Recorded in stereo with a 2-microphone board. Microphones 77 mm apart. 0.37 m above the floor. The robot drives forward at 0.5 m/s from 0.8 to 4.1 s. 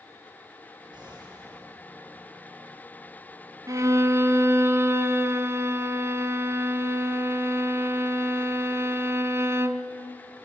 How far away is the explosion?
About 9.5 m.